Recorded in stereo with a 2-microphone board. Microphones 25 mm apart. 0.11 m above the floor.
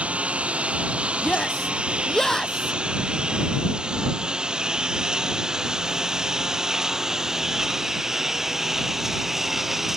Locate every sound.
0.0 s a lawn mower: 55° right (ahead or behind); by 10.0 s 10° right (ahead or behind)
1.2 s a shout: 20° left (ahead or behind)